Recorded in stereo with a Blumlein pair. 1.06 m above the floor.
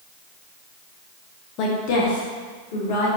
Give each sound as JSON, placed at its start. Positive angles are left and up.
{"t": 1.6, "sound": "a woman speaking", "azimuth_deg": 40, "distance_m": 0.9}